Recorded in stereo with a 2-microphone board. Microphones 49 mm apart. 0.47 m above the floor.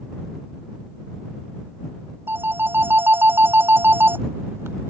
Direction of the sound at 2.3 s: 55° right (ahead or behind).